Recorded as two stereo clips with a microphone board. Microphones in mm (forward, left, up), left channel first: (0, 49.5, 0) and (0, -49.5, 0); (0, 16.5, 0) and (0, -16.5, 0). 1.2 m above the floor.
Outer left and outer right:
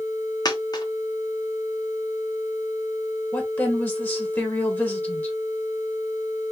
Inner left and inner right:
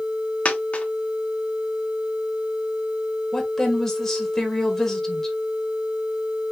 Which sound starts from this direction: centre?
A woman speaking, at 3.3 s.